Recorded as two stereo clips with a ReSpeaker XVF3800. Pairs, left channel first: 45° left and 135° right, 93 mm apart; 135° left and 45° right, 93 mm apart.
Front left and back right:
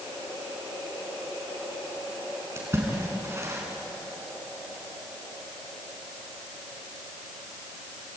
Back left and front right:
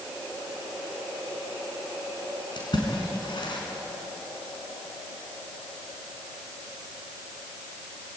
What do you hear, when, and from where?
2.6 s a splash: 165° left, 5.5 m